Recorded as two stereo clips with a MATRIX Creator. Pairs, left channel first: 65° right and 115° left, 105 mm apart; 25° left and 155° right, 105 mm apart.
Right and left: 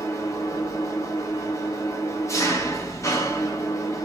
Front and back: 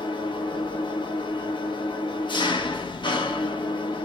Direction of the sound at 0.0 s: 10° right.